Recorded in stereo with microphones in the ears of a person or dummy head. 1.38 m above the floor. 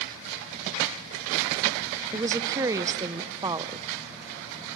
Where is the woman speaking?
20° right (ahead or behind), 0.5 m.